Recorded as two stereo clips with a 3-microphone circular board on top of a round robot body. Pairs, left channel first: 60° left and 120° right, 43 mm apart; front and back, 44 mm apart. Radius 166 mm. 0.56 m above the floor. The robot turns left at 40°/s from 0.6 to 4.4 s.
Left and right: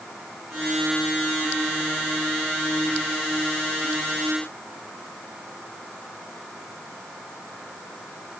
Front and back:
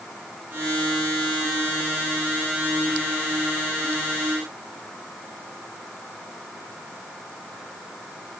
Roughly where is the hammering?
I don't hear hammering.